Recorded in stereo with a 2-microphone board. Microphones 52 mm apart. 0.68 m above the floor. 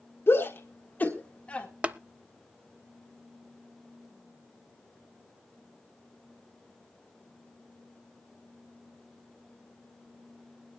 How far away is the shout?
About 1.7 m.